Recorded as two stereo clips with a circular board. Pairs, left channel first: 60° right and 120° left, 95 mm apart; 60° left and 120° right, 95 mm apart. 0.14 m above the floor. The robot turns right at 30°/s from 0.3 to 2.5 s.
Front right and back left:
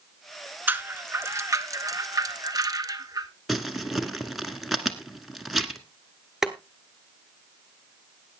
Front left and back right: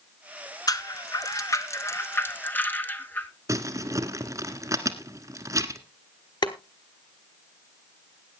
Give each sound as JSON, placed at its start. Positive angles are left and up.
{"t": 0.7, "sound": "a rattle", "azimuth_deg": 65, "distance_m": 1.0}
{"t": 3.5, "sound": "crumpling", "azimuth_deg": -150, "distance_m": 1.3}
{"t": 6.4, "sound": "boiling", "azimuth_deg": 35, "distance_m": 1.2}